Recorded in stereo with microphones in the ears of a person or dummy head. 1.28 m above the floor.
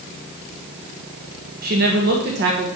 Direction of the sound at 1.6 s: 40° right (ahead or behind).